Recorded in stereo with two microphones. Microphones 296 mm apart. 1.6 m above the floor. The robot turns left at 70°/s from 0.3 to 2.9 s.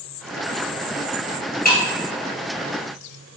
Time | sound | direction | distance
1.6 | breaking glass | 30° left (ahead or behind) | 1.2 m